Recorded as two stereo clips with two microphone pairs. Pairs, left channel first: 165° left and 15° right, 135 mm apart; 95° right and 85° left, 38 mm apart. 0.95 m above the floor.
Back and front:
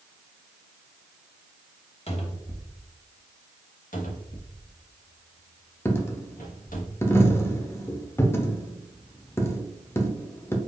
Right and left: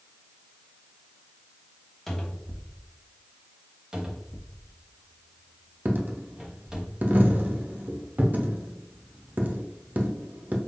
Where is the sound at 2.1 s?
175° right, 1.1 m.